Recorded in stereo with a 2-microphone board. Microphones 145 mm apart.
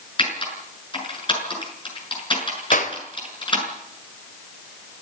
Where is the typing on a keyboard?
35° left (ahead or behind), 7 m.